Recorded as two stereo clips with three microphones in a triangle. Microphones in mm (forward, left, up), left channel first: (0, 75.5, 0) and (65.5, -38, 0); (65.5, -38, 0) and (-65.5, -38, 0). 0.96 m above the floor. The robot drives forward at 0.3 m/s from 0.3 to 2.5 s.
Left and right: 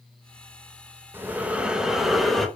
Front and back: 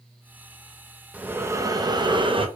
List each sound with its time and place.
1.1 s breathing: 110° right, 0.6 m; by 2.5 s 150° right, 0.8 m